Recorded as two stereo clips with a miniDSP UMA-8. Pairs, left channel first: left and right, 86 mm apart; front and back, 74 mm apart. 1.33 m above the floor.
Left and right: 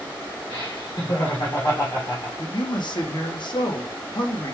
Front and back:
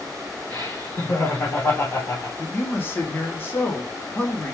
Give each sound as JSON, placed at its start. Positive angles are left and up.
{"t": 0.5, "sound": "laughter", "azimuth_deg": 60, "distance_m": 1.4}
{"t": 2.4, "sound": "a man speaking", "azimuth_deg": 60, "distance_m": 0.9}